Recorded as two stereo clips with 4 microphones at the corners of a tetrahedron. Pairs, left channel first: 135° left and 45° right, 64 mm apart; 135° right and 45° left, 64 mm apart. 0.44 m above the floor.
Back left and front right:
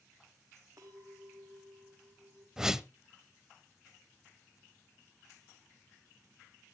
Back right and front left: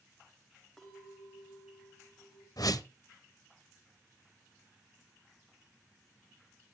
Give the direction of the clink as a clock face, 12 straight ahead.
2 o'clock.